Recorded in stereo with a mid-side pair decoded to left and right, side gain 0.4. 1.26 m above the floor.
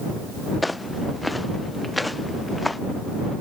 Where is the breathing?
No breathing in this recording.